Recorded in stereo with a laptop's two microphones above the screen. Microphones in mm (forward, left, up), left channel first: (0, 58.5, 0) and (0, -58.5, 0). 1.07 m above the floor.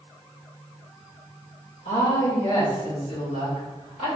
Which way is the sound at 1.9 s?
70° left (ahead or behind).